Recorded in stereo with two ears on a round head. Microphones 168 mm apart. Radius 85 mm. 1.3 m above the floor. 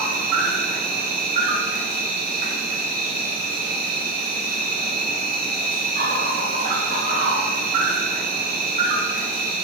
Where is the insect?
50° right (ahead or behind), 0.8 m.